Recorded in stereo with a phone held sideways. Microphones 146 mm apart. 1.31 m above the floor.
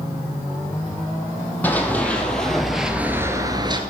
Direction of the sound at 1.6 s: 10° left (ahead or behind).